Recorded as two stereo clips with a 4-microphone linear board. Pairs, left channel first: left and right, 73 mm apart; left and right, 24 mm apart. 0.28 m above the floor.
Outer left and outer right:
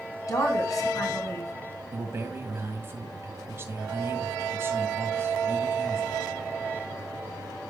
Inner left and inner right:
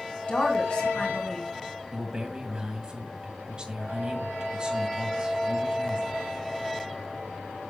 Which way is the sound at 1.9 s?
35° right (ahead or behind).